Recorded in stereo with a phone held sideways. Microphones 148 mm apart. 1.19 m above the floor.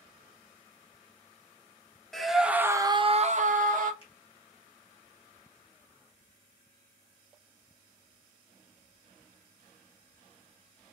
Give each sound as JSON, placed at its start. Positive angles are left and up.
{"t": 2.1, "sound": "a scream", "side_deg": 0, "distance_m": 1.0}
{"t": 4.0, "sound": "a finger snap", "side_deg": 40, "distance_m": 1.7}